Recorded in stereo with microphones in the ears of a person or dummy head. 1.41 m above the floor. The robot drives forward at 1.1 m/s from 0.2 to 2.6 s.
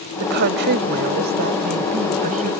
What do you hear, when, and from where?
0.2 s a woman speaking: 60° right (ahead or behind); by 2.5 s 40° right (ahead or behind)